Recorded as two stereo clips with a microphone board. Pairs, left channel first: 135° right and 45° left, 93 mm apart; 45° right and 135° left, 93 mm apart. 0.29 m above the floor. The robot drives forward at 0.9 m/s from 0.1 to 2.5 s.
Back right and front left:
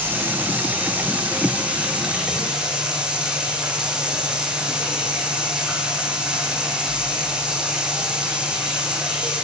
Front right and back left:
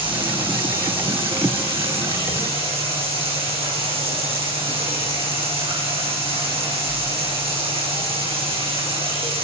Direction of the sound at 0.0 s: 110° left.